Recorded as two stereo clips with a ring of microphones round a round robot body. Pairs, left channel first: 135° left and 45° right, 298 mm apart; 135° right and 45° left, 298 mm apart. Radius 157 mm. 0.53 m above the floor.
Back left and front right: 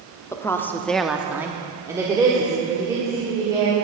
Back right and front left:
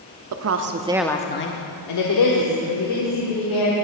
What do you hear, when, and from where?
0.3 s a woman speaking: 55° left, 1.0 m; by 3.7 s 125° right, 3 m